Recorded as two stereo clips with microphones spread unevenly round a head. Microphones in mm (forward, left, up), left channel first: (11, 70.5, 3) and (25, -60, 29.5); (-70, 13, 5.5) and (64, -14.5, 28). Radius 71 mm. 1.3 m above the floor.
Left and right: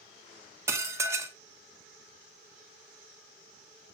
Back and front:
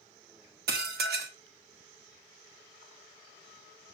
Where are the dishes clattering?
15° right, 1.4 m.